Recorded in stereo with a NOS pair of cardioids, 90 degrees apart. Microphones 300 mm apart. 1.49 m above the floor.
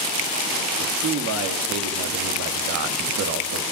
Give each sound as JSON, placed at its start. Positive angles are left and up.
{"t": 0.8, "sound": "a man speaking", "azimuth_deg": -65, "distance_m": 2.5}